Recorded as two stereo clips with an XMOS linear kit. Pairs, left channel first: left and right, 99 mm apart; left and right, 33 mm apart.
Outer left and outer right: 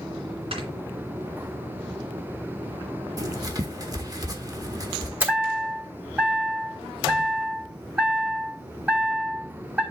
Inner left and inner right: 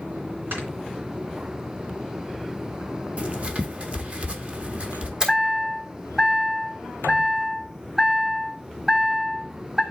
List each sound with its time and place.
0.5 s snoring: 80° right, 2.5 m
3.2 s writing: 40° right (ahead or behind), 1.0 m
5.2 s a chime: 20° right (ahead or behind), 3 m